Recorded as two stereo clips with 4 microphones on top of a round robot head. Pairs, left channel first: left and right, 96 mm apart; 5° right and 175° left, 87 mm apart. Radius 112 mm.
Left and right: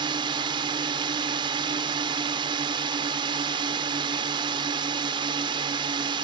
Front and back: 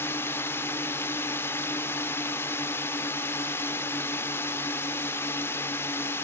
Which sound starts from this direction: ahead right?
A drone, at 0.0 s.